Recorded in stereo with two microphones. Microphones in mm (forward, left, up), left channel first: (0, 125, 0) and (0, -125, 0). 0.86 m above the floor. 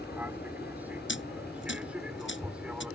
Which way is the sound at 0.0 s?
5° right (ahead or behind).